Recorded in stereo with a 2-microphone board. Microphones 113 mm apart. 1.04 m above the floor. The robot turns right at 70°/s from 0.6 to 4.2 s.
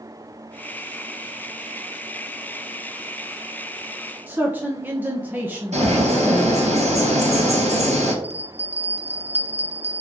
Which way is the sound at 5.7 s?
80° right.